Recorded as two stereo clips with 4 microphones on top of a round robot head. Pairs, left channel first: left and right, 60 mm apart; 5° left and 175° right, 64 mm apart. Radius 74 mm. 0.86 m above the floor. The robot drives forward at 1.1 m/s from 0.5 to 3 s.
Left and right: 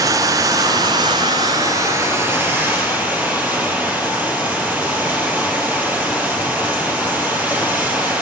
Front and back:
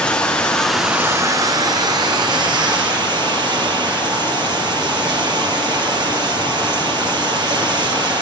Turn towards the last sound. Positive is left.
turn(degrees=-160)